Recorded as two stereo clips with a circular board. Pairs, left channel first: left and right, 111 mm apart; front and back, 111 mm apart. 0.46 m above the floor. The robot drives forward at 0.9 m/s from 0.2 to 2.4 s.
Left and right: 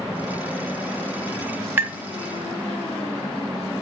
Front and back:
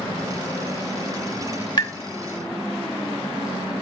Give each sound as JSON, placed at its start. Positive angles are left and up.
{"t": 1.8, "sound": "tapping", "azimuth_deg": -25, "distance_m": 0.7}